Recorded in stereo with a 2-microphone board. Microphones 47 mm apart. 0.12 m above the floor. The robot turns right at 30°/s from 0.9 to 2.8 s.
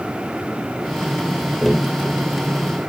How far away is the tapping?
About 3 m.